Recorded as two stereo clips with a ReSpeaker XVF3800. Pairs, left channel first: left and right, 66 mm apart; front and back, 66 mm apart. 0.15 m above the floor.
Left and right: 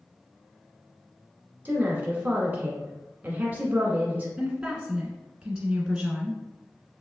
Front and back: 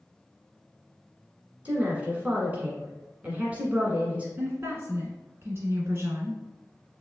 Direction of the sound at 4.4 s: 160° right.